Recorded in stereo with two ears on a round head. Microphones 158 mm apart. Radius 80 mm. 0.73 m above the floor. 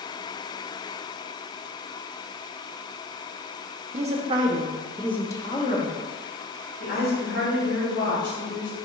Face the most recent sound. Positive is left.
turn(degrees=70)  # may be behind; listen again after turning